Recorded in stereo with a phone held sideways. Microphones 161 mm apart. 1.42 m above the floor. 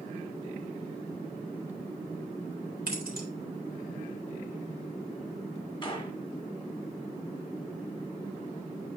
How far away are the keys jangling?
About 3 m.